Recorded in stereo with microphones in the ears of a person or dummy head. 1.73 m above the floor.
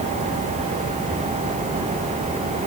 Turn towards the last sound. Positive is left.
No sound to turn to.